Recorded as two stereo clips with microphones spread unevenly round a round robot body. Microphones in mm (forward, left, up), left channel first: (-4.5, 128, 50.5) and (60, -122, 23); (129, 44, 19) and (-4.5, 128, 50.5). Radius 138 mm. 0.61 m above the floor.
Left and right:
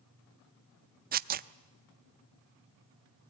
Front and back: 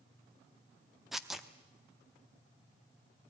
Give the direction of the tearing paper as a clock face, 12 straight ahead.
4 o'clock.